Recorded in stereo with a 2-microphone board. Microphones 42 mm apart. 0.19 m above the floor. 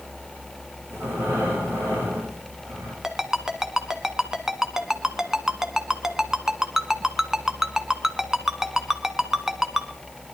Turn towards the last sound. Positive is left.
turn(degrees=-15)  # may be behind; listen again after turning